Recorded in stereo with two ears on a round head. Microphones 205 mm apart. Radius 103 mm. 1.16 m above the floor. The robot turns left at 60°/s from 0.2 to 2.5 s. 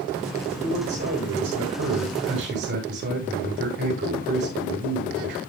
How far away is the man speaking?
About 8 m.